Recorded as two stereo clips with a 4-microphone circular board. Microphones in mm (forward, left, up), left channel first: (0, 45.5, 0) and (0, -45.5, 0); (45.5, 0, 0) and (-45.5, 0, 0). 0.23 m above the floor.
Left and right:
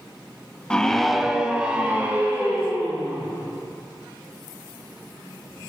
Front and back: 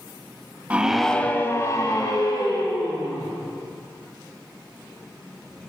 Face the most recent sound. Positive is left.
turn(degrees=-20)